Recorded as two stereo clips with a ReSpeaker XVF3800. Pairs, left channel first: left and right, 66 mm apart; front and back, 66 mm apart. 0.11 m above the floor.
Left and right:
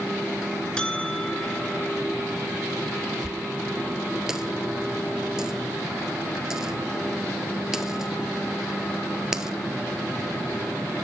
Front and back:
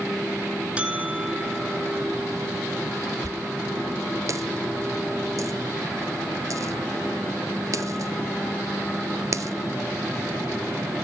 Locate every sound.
0.8 s a buzzer: 140° left, 1.1 m
3.2 s a dropped coin: 170° right, 0.5 m